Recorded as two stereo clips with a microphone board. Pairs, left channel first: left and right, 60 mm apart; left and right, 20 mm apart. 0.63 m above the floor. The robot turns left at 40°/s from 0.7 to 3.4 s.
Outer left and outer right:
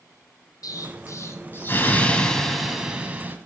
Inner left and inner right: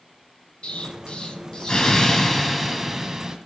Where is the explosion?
75° left, 1.6 m; by 3.4 s 30° right, 1.6 m.